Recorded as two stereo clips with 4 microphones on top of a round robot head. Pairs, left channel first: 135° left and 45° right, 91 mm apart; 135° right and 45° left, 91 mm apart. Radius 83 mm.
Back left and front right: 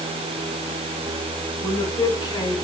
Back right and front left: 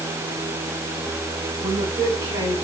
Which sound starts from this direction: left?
A woman speaking, at 1.6 s.